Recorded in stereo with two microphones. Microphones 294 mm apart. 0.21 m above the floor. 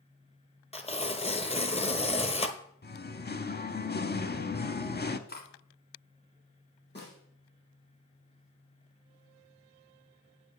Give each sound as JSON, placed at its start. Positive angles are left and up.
{"t": 0.7, "sound": "tearing paper", "side_deg": 20, "distance_m": 0.7}
{"t": 2.8, "sound": "singing", "side_deg": 35, "distance_m": 0.6}
{"t": 5.3, "sound": "cutlery clinking", "side_deg": 35, "distance_m": 1.4}
{"t": 7.0, "sound": "a snare drum", "side_deg": 35, "distance_m": 5.0}